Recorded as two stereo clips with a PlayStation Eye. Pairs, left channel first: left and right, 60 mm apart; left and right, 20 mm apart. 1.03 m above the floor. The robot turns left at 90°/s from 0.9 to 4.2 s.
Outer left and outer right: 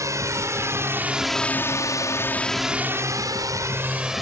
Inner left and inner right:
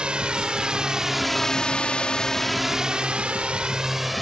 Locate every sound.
0.0 s a drone: 60° right (ahead or behind); by 4.2 s centre (ahead or behind)